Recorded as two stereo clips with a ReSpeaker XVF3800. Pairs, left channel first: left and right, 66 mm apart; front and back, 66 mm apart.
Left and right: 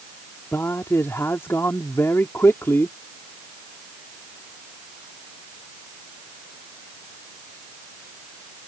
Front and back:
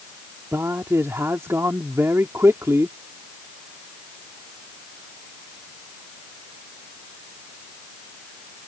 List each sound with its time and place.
0.5 s a man speaking: 135° left